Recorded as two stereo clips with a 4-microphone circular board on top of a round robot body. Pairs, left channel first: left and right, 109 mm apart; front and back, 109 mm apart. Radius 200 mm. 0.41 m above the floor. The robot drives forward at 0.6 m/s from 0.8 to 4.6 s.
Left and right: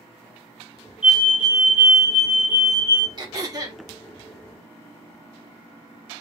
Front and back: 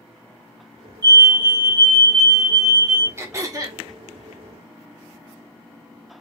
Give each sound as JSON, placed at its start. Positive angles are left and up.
{"t": 1.0, "sound": "a fire alarm", "azimuth_deg": -165, "distance_m": 2.5}
{"t": 3.2, "sound": "throat clearing", "azimuth_deg": -125, "distance_m": 1.5}